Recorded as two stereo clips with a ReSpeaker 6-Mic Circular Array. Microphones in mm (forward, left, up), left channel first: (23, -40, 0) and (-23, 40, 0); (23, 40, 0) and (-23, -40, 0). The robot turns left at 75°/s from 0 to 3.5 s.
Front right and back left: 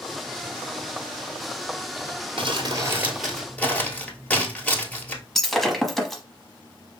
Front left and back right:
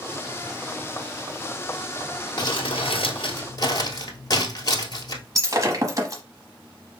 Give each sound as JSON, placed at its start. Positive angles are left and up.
{"t": 2.4, "sound": "crumpling", "azimuth_deg": 100, "distance_m": 1.1}
{"t": 5.3, "sound": "breaking glass", "azimuth_deg": -150, "distance_m": 0.9}